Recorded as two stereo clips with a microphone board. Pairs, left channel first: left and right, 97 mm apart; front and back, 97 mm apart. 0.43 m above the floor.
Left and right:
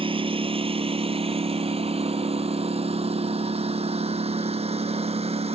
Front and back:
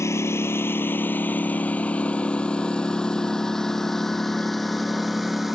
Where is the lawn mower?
60° right; by 5.5 s 90° right.